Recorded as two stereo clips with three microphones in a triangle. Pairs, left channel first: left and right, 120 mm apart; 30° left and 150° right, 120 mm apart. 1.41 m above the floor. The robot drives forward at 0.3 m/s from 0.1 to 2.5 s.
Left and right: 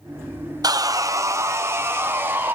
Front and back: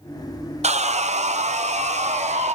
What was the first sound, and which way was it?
Sawing, 145° right.